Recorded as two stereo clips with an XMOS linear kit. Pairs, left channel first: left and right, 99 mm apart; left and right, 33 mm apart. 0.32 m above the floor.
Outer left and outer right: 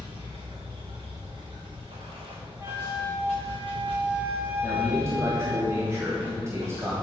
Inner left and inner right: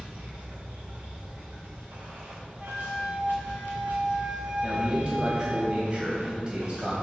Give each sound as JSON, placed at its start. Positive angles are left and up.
{"t": 0.0, "sound": "running water", "side_deg": -55, "distance_m": 3.0}
{"t": 2.6, "sound": "a flute", "side_deg": -25, "distance_m": 1.5}
{"t": 4.6, "sound": "a man speaking", "side_deg": -30, "distance_m": 1.7}